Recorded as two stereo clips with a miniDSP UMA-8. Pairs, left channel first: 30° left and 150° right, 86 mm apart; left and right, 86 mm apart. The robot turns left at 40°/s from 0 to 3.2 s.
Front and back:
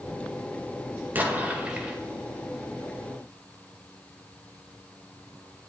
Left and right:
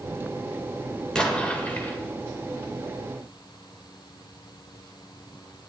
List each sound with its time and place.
1.1 s an explosion: 165° left, 1.5 m; by 2.0 s 130° left, 1.5 m